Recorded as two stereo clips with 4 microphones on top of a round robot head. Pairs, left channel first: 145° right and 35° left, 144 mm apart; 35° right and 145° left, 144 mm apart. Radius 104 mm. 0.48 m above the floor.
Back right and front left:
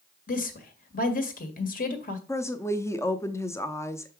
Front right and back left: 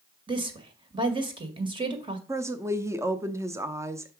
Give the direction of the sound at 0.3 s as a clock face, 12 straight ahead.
5 o'clock.